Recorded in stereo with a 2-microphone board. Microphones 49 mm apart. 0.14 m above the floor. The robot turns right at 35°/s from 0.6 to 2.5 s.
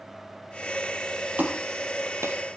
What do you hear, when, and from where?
1.4 s a clap: 35° right (ahead or behind), 3.5 m; by 2.4 s 65° right (ahead or behind), 3.5 m